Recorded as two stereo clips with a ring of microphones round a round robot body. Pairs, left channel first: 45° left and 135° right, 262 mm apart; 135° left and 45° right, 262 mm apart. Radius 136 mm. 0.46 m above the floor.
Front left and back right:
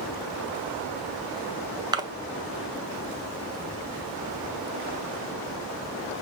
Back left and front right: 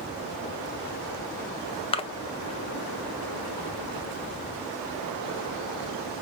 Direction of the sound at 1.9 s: 170° left.